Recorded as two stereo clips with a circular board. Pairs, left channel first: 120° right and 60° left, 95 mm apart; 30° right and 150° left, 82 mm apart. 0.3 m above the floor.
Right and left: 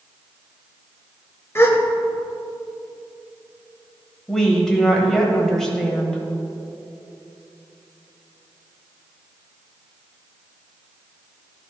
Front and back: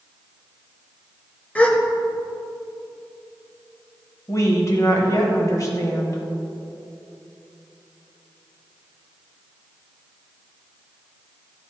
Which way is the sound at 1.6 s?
90° right.